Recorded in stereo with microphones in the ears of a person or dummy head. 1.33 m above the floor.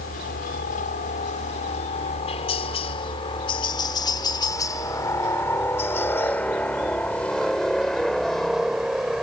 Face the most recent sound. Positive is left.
turn(degrees=-5)  # may be behind; listen again after turning